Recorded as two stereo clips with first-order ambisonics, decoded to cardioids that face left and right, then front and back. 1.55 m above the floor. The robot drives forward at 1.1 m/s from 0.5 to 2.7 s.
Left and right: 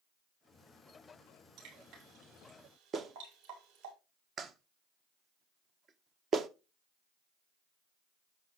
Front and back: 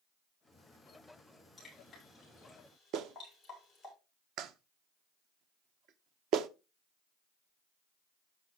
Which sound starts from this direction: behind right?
A clap, at 2.9 s.